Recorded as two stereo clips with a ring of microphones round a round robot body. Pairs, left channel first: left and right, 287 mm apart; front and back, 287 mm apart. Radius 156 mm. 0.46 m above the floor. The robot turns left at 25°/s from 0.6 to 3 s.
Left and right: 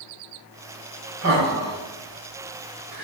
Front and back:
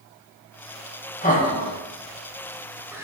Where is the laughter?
55° right, 2.5 m; by 3.0 s 100° right, 2.5 m.